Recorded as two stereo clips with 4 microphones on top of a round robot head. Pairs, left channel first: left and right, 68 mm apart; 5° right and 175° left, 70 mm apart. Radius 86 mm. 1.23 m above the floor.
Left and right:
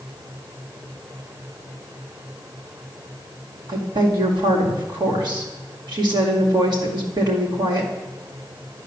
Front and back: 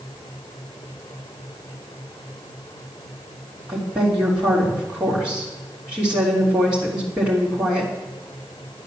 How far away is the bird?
I don't hear a bird.